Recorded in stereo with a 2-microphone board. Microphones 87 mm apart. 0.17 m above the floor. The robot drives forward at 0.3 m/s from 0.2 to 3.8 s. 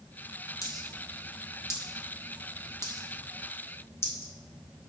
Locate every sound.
0.6 s a dropped coin: 45° left (ahead or behind), 1.9 m; by 4.3 s 30° left (ahead or behind), 2.5 m